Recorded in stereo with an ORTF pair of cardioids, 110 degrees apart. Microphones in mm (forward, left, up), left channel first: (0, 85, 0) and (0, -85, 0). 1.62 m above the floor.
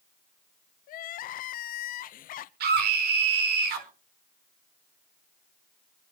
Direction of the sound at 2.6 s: 70° right.